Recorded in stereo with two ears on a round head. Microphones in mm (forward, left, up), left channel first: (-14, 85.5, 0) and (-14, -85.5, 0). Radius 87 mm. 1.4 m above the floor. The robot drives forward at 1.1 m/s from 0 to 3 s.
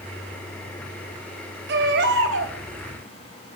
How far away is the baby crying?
About 3.5 m.